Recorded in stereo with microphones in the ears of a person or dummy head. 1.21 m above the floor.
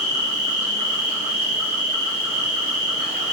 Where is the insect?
35° right (ahead or behind), 1.3 m.